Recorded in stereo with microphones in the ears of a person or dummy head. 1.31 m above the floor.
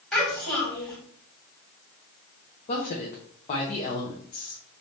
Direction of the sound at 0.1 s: 5° left (ahead or behind).